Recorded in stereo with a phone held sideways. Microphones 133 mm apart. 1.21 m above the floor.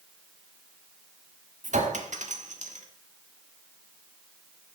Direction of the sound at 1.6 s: 65° right (ahead or behind).